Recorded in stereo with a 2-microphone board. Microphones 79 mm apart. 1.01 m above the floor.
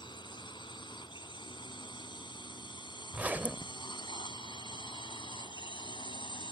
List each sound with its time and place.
0.0 s a drone: 80° left; by 6.5 s 85° left
3.1 s a zipper: 20° right (ahead or behind)